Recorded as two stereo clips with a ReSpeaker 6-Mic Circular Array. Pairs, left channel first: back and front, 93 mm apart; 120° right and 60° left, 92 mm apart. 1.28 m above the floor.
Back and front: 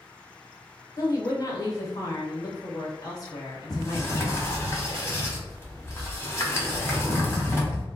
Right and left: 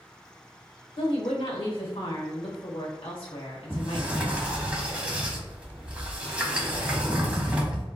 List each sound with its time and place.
1.0 s a woman speaking: 135° right, 1.1 m
3.7 s a sliding door: 130° left, 0.8 m